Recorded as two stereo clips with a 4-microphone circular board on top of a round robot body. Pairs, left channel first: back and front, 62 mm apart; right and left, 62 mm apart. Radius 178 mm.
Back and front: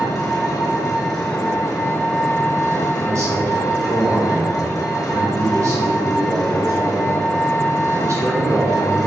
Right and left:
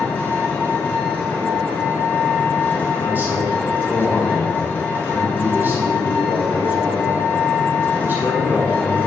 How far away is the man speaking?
About 3 m.